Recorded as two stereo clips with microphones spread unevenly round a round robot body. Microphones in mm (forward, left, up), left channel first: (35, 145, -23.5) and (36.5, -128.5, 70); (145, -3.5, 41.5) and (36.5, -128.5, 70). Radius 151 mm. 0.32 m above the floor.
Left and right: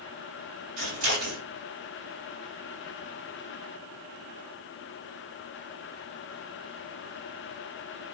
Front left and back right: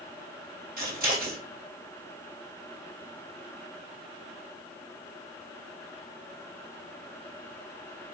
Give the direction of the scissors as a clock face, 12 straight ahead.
3 o'clock.